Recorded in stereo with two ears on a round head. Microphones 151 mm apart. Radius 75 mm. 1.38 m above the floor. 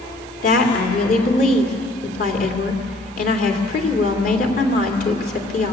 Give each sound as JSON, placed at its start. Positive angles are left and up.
{"t": 0.4, "sound": "a woman speaking", "side_deg": 55, "distance_m": 3.0}